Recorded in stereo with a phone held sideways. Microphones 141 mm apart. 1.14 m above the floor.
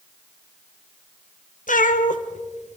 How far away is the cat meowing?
About 1.5 m.